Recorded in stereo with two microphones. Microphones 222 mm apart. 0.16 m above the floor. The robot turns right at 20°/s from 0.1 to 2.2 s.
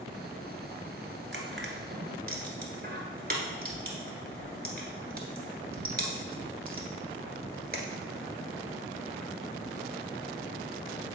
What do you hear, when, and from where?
1.3 s crushing: 60° right (ahead or behind), 1.4 m; by 8.1 s 45° right (ahead or behind), 1.4 m